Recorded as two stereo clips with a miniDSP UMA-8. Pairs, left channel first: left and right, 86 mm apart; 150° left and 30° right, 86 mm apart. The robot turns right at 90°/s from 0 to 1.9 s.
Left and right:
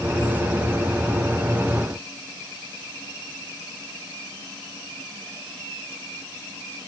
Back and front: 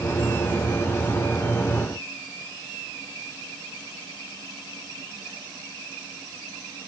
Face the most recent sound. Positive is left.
No sound to turn to.